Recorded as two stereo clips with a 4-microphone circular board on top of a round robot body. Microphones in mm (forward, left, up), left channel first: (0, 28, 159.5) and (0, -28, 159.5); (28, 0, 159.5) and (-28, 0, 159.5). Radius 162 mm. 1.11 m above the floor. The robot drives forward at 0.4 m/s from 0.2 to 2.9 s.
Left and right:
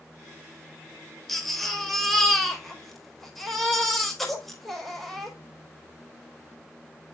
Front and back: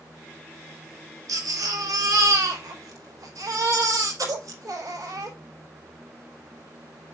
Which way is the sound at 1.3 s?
175° left.